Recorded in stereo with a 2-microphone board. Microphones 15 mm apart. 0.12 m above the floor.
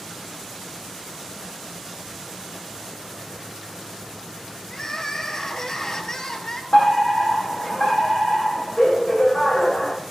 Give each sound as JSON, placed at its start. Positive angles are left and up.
{"t": 4.7, "sound": "crying", "side_deg": 35, "distance_m": 2.0}
{"t": 6.7, "sound": "a fire alarm", "side_deg": 75, "distance_m": 7.0}